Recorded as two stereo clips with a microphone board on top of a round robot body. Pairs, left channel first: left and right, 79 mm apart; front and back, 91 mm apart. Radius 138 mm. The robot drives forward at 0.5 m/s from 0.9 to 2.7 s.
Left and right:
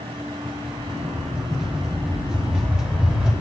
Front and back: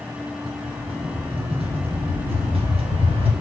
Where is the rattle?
175° right, 3.5 m.